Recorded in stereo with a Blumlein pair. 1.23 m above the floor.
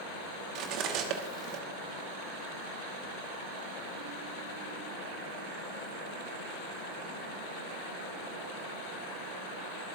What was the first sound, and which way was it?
Cutlery clinking, 40° right.